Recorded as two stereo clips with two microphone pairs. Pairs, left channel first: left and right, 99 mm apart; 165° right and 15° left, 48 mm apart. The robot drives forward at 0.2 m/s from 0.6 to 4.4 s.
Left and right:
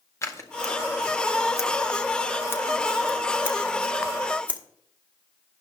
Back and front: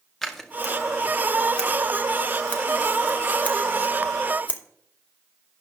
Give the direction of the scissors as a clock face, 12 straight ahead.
8 o'clock.